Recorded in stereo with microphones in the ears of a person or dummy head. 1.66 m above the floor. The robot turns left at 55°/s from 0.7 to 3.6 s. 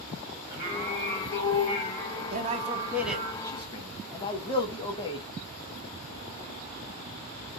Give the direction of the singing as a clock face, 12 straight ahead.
5 o'clock.